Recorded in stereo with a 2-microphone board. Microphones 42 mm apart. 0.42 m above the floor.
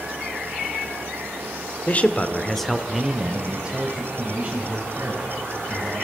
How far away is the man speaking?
About 1.0 m.